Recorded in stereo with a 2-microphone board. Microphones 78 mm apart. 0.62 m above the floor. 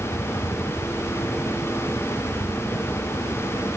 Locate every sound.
0.0 s a helicopter: 65° left (ahead or behind); by 3.8 s 70° left (ahead or behind)